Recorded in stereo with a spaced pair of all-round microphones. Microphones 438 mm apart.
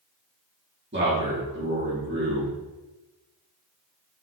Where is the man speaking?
25° right (ahead or behind), 2.5 m.